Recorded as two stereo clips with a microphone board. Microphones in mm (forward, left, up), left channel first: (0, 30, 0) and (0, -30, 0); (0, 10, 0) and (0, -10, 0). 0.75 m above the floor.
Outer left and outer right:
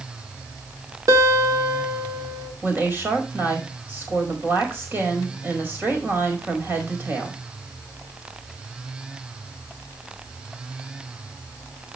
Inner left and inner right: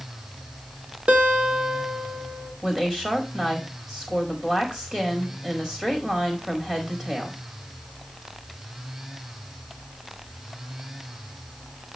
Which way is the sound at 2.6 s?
35° right (ahead or behind).